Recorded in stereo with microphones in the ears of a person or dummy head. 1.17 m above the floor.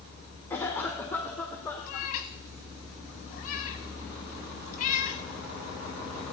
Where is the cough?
5° left (ahead or behind), 1.1 m.